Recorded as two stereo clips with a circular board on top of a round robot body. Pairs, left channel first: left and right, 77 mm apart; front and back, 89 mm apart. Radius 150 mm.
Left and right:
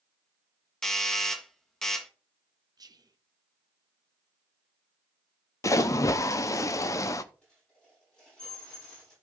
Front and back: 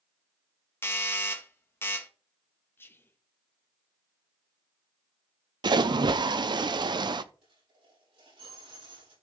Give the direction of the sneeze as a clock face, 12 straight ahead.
No sneeze in this recording.